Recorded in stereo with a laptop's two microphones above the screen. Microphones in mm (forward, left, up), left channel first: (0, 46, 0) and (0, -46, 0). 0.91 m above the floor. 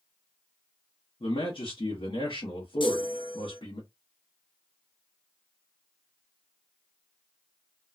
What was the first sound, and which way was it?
A man speaking, 65° left (ahead or behind).